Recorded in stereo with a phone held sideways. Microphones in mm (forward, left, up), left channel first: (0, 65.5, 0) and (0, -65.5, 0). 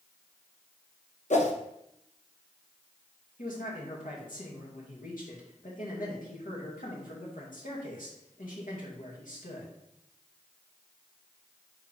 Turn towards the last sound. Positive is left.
turn(degrees=80)